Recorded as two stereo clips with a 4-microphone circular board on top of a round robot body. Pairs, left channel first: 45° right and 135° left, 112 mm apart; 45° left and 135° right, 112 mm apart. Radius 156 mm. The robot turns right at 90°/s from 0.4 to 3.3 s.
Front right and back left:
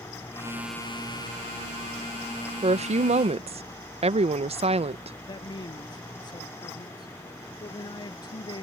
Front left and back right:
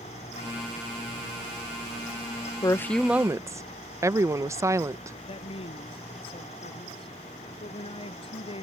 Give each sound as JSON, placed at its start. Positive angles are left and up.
{"t": 2.6, "sound": "a woman speaking", "azimuth_deg": 100}
{"t": 5.3, "sound": "a man speaking", "azimuth_deg": 5}